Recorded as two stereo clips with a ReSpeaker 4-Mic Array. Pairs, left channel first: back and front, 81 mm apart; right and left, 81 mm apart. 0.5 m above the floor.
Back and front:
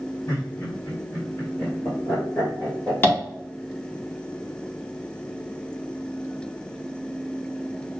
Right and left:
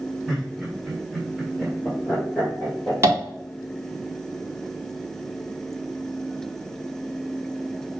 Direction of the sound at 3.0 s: 130° left.